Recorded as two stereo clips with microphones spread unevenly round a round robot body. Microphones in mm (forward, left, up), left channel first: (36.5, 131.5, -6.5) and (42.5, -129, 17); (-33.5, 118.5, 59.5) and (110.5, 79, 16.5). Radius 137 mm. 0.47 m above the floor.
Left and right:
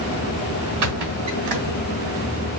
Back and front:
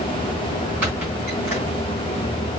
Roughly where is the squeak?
Right.